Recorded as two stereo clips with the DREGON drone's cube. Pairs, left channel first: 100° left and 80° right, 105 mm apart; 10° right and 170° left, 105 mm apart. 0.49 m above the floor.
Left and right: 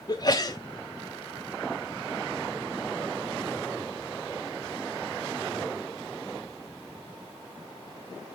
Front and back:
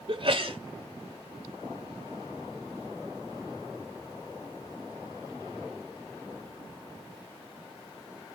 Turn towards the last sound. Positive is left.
turn(degrees=145)